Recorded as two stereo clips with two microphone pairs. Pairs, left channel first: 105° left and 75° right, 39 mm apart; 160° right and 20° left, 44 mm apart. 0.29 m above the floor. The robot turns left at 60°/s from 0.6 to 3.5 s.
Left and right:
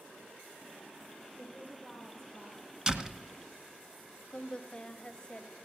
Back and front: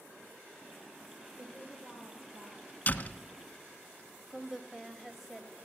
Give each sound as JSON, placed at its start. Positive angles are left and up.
{"t": 1.4, "sound": "a woman speaking", "azimuth_deg": 80, "distance_m": 7.5}
{"t": 2.9, "sound": "a door slam", "azimuth_deg": -140, "distance_m": 1.2}
{"t": 4.3, "sound": "a woman speaking", "azimuth_deg": 95, "distance_m": 1.1}